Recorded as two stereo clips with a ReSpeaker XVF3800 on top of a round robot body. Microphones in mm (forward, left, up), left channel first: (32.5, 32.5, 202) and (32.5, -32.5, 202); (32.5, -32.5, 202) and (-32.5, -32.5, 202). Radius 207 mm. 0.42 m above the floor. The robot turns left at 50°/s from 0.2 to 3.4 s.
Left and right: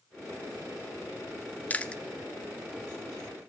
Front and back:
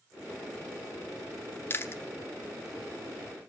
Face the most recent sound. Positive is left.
turn(degrees=-50)